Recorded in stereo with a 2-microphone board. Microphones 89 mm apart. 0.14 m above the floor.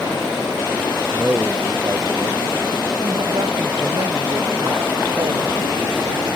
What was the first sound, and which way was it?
A man speaking, 25° right (ahead or behind).